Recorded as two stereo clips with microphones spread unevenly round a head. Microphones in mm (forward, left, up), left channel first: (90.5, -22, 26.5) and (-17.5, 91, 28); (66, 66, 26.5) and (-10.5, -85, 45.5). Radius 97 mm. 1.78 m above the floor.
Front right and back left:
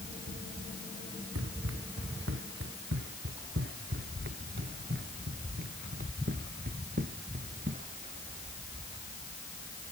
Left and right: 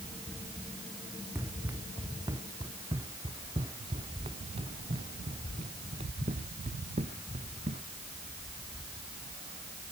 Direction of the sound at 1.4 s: 165° left.